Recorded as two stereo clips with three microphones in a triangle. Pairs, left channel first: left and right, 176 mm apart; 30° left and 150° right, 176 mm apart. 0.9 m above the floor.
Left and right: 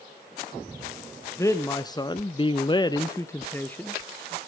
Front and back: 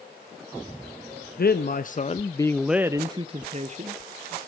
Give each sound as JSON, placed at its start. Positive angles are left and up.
{"t": 1.4, "sound": "a man speaking", "azimuth_deg": 20, "distance_m": 0.9}